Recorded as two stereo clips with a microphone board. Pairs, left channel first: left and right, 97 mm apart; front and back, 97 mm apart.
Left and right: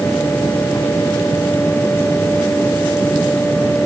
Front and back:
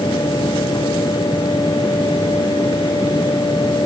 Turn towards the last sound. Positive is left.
No sound to turn to.